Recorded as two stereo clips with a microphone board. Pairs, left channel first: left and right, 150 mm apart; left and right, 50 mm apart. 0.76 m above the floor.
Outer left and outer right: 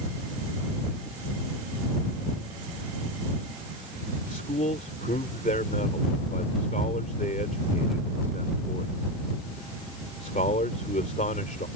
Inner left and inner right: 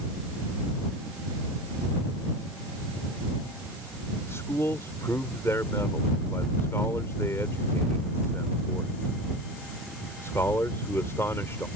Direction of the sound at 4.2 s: 75° left (ahead or behind).